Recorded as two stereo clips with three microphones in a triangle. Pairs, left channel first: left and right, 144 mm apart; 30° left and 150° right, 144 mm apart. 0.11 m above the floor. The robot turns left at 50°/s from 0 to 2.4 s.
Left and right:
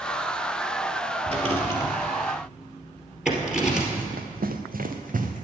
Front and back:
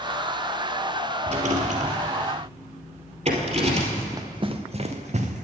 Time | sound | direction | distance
1.3 | a rattle | 120° right | 2.5 m
4.0 | running footsteps | 75° right | 0.8 m